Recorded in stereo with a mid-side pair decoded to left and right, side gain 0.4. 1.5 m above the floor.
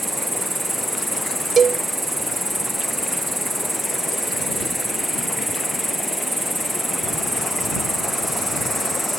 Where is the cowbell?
50° right.